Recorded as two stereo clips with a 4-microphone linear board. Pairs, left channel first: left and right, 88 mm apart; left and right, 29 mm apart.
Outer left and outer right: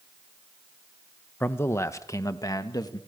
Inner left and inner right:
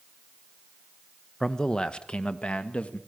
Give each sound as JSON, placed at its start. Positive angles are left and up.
{"t": 1.4, "sound": "a man speaking", "side_deg": 20, "distance_m": 1.0}